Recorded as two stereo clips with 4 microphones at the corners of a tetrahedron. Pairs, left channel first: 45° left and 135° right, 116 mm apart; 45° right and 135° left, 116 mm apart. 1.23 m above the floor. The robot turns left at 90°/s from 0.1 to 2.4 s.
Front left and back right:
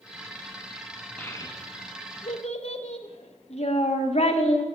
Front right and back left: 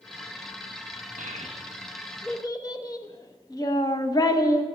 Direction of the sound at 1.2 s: 125° left.